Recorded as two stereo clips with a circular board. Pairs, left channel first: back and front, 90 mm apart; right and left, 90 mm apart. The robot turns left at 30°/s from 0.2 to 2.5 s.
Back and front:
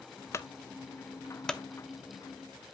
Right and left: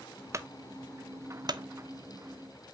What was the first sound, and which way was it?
A clunk, 135° left.